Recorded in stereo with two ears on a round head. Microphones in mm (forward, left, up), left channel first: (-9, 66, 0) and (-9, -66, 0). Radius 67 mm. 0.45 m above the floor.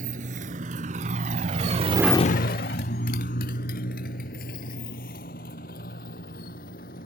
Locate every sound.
0.0 s a motorcycle: 60° right (ahead or behind); by 7.1 s 60° left (ahead or behind)